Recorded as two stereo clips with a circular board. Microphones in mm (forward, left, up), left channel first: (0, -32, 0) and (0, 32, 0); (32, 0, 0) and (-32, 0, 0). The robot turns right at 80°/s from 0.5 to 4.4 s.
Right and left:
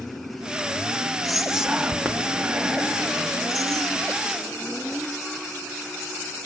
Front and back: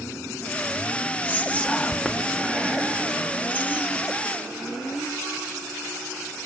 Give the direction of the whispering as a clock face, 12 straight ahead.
12 o'clock.